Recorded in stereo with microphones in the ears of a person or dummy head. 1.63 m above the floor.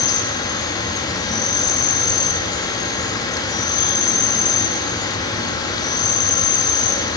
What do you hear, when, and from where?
0.0 s an insect: 20° left (ahead or behind), 5 m